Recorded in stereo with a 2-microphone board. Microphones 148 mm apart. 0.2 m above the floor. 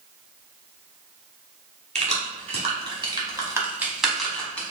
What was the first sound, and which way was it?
Keys jangling, 50° right (ahead or behind).